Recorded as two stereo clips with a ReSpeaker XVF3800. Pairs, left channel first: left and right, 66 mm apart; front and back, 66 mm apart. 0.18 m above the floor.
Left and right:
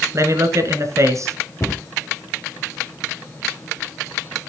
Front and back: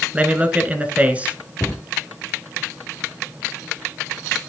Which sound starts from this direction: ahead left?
A cupboard door, at 1.6 s.